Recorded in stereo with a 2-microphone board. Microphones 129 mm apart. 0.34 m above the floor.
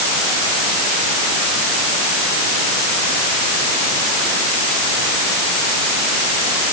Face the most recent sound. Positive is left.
No sound to turn to.